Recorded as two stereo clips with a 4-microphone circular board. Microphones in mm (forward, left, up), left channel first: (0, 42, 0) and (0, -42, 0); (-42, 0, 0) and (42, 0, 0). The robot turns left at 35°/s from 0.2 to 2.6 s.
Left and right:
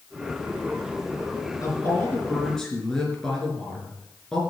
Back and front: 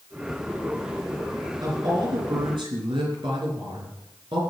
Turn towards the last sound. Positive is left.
turn(degrees=5)